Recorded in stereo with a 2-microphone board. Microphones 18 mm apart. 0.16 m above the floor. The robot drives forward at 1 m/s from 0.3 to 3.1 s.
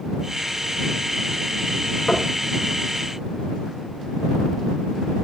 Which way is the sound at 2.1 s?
55° left (ahead or behind).